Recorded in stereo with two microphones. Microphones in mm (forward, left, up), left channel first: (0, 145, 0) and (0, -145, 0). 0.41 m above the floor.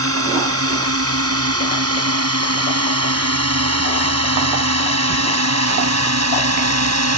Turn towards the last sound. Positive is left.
turn(degrees=-65)  # may be behind; listen again after turning